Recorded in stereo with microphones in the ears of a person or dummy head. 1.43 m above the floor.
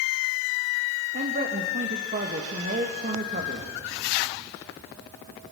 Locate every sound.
1.1 s a man speaking: 45° right (ahead or behind), 2.5 m